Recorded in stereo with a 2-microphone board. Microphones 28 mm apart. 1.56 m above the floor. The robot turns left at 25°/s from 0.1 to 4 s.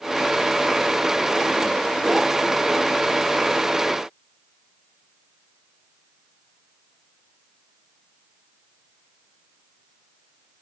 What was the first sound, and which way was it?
Only background noise.